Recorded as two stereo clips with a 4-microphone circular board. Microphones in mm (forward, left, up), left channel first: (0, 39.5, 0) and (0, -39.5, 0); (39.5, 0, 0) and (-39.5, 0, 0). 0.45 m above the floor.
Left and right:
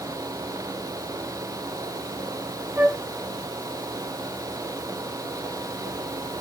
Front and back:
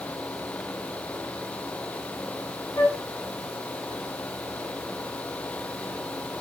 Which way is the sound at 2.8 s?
35° right.